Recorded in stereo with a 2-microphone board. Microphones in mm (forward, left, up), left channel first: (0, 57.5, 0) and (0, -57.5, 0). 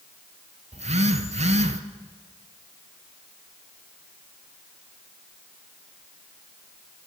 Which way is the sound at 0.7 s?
75° right (ahead or behind).